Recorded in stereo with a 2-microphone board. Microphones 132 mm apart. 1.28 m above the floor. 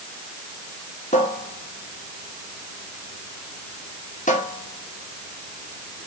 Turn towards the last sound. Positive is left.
turn(degrees=70)  # may be behind; listen again after turning